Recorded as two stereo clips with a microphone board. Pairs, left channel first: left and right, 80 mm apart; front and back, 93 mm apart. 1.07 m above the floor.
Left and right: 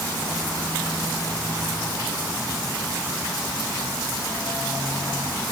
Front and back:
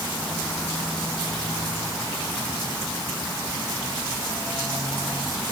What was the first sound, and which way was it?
Only background noise.